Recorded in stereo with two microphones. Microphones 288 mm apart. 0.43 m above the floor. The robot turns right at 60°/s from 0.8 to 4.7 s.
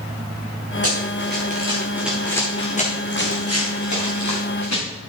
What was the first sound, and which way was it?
Running footsteps, 55° right (ahead or behind).